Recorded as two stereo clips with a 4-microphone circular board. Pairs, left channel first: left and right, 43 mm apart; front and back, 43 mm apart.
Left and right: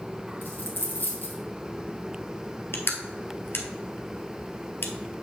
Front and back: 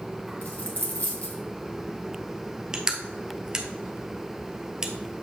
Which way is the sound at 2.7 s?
110° left.